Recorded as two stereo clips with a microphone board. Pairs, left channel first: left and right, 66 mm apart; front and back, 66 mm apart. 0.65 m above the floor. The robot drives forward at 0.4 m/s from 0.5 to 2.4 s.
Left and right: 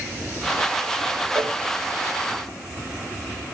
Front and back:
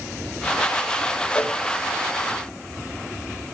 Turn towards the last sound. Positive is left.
turn(degrees=-95)